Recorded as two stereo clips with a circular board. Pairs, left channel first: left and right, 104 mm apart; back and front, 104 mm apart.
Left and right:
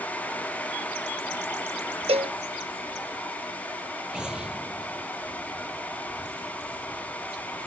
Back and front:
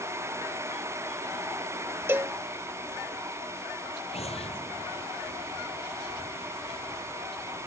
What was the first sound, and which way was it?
A cowbell, 70° right.